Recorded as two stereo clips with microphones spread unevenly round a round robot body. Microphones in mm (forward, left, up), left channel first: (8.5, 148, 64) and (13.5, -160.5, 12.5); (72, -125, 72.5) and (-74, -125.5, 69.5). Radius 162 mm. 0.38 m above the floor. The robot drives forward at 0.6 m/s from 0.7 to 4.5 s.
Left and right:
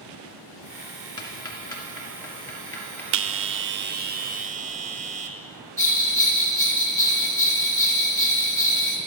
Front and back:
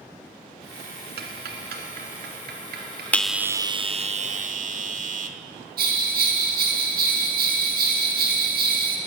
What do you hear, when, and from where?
1.2 s ticking: 170° left, 1.4 m; by 3.0 s 175° left, 2.5 m
3.1 s a bell: 80° right, 0.6 m; by 5.4 s 150° right, 0.9 m
5.8 s a bell: 175° left, 2 m